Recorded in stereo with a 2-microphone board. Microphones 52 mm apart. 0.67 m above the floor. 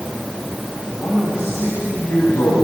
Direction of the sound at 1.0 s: 70° left (ahead or behind).